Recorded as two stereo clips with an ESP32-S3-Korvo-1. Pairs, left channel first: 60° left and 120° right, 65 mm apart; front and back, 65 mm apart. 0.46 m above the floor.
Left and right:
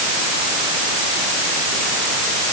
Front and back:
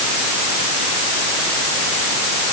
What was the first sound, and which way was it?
Only background noise.